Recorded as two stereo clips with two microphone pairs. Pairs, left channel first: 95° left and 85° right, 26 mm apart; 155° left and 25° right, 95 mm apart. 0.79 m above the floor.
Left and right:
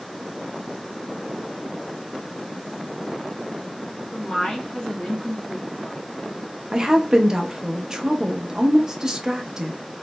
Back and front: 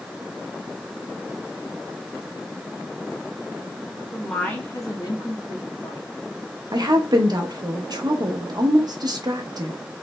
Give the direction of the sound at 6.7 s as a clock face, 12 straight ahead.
1 o'clock.